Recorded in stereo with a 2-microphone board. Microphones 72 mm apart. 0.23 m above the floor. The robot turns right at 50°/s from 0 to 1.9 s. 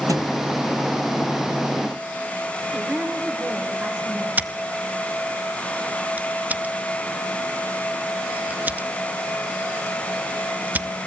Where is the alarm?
I don't hear an alarm.